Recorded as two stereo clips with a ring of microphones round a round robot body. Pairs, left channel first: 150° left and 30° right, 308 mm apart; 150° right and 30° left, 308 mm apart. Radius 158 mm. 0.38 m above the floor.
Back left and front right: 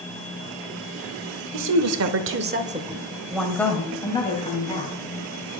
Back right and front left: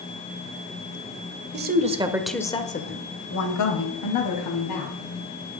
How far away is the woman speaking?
About 1.4 m.